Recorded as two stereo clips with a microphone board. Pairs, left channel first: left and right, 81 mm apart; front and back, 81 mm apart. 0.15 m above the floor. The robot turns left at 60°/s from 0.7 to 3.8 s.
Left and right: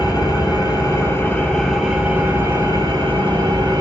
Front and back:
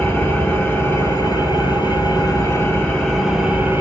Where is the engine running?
60° left, 2.0 m; by 3.8 s 125° right, 2.0 m.